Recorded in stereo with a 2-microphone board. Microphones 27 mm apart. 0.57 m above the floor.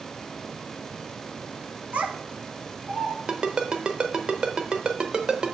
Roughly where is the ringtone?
Right.